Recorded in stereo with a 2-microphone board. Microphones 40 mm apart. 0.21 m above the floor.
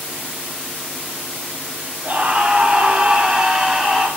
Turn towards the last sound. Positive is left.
turn(degrees=5)  # may be behind; listen again after turning